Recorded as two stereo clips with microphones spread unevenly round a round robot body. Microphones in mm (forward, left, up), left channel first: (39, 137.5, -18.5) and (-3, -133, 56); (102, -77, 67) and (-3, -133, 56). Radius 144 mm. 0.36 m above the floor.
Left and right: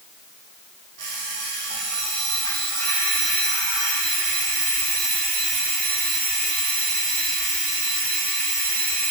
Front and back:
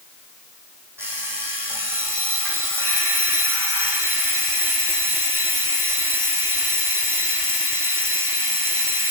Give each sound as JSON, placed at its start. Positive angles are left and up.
{"t": 1.0, "sound": "an alarm clock", "azimuth_deg": -80, "distance_m": 7.0}